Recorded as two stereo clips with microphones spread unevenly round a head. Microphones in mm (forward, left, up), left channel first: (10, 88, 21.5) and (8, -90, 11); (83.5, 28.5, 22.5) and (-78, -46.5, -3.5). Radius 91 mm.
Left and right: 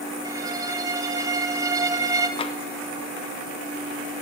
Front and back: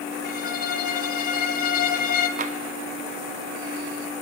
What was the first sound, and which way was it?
A violin, 20° right.